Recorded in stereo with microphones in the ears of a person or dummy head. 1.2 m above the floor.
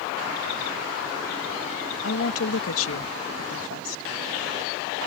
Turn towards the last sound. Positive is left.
turn(degrees=75)  # may be behind; listen again after turning